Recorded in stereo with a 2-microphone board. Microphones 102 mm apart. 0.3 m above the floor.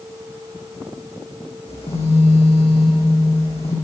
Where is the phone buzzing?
85° left, 8.5 m.